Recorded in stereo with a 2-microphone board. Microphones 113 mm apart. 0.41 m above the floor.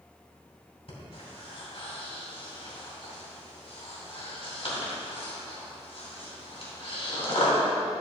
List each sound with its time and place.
0.9 s breathing: 55° left (ahead or behind), 3 m